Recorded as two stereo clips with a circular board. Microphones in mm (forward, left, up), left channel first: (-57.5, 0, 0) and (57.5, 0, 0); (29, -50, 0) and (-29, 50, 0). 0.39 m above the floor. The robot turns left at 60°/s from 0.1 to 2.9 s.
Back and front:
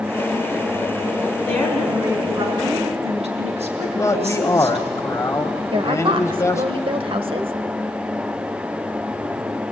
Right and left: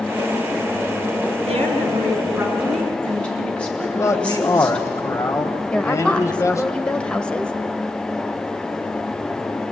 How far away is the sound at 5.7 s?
About 1.4 m.